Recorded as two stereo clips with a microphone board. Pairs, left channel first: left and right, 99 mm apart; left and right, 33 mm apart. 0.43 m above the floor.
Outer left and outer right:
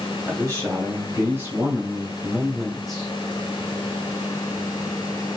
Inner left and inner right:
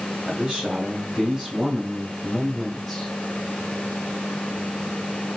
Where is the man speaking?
30° right (ahead or behind), 2 m; by 3.1 s 5° left (ahead or behind), 1.1 m.